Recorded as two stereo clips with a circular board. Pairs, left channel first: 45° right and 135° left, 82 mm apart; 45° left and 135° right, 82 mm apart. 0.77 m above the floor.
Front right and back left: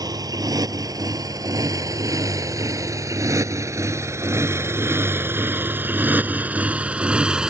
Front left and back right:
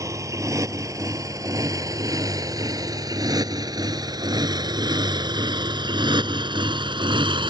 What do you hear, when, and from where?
0.0 s a motorcycle: 175° left; by 7.5 s 145° right